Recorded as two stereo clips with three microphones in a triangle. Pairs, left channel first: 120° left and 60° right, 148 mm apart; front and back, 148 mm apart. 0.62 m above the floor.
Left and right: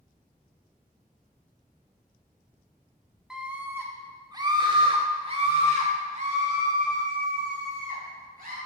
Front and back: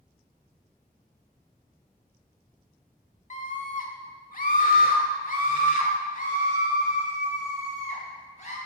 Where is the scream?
25° left, 1.5 m; by 8.6 s 40° right, 3.5 m.